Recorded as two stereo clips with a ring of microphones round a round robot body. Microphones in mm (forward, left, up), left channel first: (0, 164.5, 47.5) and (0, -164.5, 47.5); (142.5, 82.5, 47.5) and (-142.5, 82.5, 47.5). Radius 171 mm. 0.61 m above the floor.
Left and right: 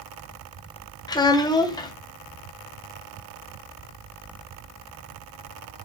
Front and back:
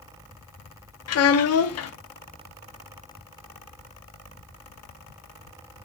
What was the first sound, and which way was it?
A child speaking, 15° left.